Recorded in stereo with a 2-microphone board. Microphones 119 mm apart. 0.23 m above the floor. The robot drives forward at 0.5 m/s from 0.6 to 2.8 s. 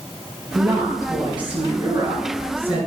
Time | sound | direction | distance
0.6 | a woman speaking | 35° right (ahead or behind) | 3.5 m